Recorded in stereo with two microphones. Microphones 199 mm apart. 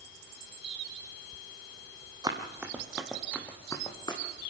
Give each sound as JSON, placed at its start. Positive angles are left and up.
{"t": 2.2, "sound": "running footsteps", "side_deg": -20, "distance_m": 2.5}